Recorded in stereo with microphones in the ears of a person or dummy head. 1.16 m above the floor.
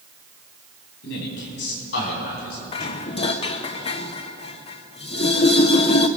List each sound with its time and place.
1.0 s a man speaking: 70° left (ahead or behind), 5 m; by 3.0 s 60° left (ahead or behind), 6.5 m
2.7 s dishes clattering: 35° left (ahead or behind), 0.7 m